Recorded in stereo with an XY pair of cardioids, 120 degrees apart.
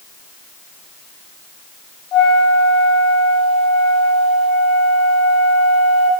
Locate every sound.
2.1 s a flute: 70° left, 4.5 m